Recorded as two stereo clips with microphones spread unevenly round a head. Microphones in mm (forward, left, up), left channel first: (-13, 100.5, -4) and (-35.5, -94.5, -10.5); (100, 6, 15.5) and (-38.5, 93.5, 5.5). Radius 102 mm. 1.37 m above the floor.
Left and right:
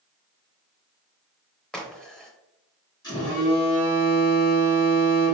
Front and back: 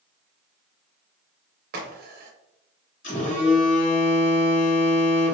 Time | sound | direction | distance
1.7 | a crack | 170° left | 0.6 m
3.0 | a phone buzzing | 10° left | 1.7 m